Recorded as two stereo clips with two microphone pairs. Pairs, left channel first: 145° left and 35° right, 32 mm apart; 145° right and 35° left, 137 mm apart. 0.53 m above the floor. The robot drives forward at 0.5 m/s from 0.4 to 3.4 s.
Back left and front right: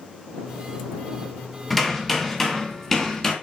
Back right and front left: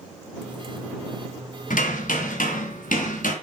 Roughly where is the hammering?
Behind right.